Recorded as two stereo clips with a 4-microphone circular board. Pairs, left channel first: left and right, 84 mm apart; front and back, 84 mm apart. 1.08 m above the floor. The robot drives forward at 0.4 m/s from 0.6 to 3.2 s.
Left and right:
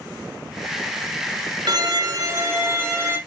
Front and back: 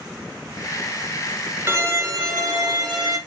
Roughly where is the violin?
Behind right.